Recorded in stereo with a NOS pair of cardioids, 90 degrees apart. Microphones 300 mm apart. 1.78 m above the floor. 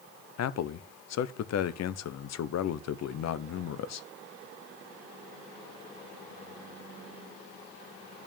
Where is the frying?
I don't hear frying.